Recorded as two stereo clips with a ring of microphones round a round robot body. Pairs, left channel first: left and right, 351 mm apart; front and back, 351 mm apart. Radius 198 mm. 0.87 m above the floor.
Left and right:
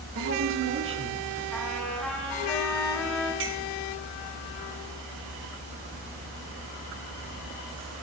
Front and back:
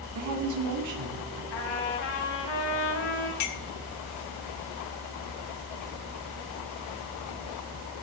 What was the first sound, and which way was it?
A woman speaking, 145° right.